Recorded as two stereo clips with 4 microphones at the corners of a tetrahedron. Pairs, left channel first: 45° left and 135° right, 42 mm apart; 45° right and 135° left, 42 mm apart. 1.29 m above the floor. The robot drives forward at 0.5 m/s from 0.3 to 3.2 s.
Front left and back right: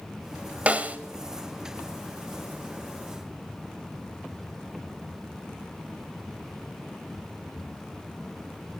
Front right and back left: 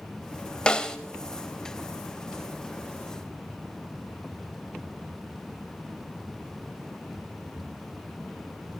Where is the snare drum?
105° right, 1.3 m; by 1.0 s 115° right, 1.3 m.